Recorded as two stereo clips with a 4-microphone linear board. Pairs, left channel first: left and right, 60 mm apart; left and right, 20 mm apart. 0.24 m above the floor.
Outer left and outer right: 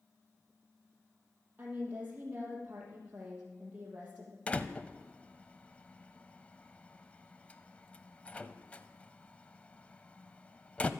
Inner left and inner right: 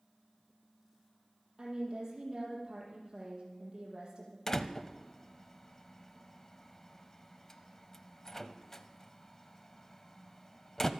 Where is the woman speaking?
30° right (ahead or behind), 6 m.